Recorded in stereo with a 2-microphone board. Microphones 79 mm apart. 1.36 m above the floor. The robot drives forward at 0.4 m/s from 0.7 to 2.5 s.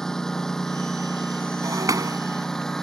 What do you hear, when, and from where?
0.0 s a lawn mower: 5° left (ahead or behind)
1.6 s breaking glass: 45° right (ahead or behind)